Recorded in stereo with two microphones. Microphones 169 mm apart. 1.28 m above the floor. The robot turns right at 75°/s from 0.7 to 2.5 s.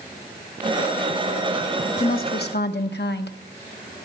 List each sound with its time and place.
2.0 s a woman speaking: 45° left, 1.0 m; by 3.4 s 85° left, 1.0 m